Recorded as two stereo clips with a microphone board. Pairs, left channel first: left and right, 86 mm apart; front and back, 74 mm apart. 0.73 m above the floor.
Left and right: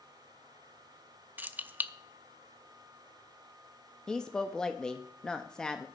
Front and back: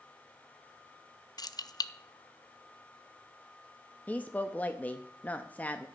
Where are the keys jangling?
25° right, 0.6 m.